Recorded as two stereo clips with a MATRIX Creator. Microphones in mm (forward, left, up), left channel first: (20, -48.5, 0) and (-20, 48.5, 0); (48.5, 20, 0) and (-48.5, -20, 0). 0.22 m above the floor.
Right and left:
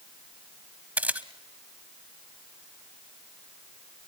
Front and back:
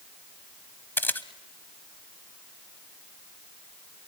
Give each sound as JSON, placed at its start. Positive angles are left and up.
{"t": 1.0, "sound": "a camera shutter", "azimuth_deg": 60, "distance_m": 0.8}